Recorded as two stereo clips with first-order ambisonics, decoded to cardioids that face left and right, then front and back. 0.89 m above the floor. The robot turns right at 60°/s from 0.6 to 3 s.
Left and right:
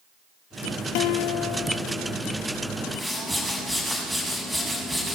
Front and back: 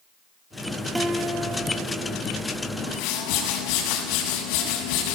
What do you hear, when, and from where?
0.9 s a guitar: 95° left, 2 m; by 2.2 s 165° left, 2 m
2.8 s a whoosh: 15° right, 6.5 m; by 5.2 s 5° right, 6.5 m